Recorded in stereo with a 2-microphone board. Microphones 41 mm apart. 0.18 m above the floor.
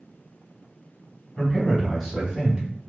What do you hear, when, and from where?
1.4 s a man speaking: 20° left (ahead or behind), 1.0 m; by 2.6 s 10° right (ahead or behind), 1.1 m